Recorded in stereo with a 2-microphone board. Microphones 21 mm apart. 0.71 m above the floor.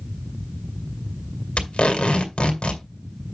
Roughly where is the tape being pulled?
Left.